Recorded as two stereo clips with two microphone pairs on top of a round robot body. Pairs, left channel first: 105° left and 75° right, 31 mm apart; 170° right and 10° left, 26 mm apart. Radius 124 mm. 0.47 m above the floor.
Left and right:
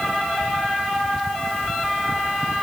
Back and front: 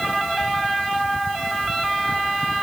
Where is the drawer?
I don't hear a drawer.